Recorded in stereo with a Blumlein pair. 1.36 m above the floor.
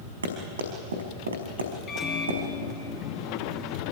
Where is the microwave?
25° left, 2.5 m.